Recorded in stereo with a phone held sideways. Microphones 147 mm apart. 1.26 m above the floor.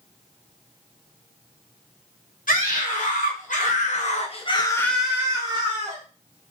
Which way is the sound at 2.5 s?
70° left (ahead or behind).